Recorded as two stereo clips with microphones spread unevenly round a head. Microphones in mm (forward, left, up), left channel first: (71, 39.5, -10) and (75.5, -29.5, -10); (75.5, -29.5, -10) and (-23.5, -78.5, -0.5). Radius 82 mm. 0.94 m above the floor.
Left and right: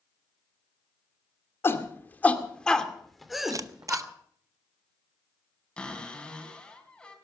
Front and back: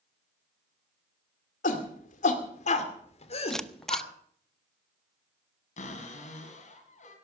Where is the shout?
40° left, 2.5 m; by 4.0 s 10° right, 3 m.